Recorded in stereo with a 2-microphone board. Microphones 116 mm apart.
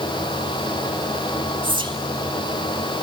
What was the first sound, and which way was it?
Whispering, 45° right (ahead or behind).